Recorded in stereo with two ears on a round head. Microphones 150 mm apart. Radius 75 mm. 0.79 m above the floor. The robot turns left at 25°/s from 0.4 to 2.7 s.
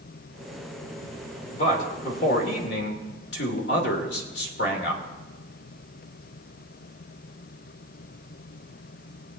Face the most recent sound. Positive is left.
turn(degrees=70)  # may be behind; listen again after turning